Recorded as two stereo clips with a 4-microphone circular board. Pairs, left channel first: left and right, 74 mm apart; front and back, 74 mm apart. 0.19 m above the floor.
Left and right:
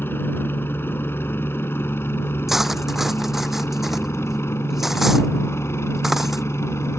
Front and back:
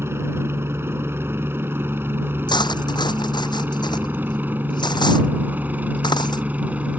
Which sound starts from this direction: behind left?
A helicopter, at 0.0 s.